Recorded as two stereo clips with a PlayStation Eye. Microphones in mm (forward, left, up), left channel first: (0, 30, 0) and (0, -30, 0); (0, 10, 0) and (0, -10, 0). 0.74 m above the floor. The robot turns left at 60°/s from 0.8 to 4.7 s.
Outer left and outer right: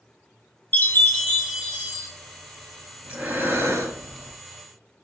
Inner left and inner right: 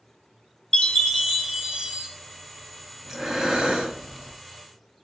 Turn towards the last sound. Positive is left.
turn(degrees=-125)